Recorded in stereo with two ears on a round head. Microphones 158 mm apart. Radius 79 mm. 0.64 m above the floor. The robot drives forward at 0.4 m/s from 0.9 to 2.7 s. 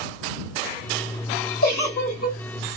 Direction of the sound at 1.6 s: 55° left (ahead or behind).